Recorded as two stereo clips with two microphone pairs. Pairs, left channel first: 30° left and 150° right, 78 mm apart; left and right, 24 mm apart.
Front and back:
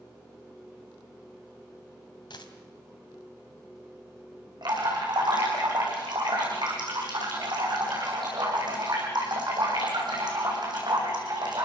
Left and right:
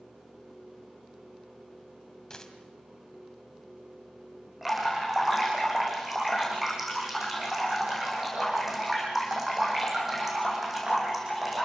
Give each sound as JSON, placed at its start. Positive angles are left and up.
{"t": 2.3, "sound": "a dropped coin", "azimuth_deg": 30, "distance_m": 3.0}
{"t": 4.6, "sound": "dripping", "azimuth_deg": -165, "distance_m": 9.0}